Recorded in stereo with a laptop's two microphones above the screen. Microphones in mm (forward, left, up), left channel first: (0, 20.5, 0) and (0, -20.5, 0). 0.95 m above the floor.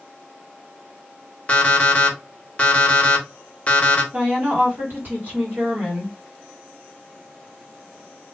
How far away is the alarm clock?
About 0.7 m.